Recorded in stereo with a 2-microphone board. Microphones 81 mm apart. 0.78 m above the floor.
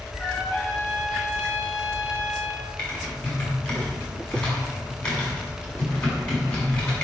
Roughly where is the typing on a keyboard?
Centre.